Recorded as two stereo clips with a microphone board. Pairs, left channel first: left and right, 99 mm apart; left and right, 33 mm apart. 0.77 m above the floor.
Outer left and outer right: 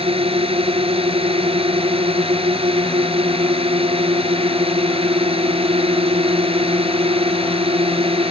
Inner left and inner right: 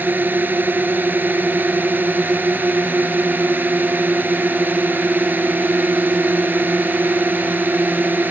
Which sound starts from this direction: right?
A drone, at 0.0 s.